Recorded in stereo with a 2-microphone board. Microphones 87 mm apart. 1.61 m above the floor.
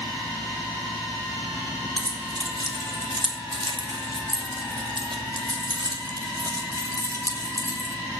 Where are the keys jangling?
50° right (ahead or behind), 3.5 m; by 8.0 s 35° right (ahead or behind), 4 m.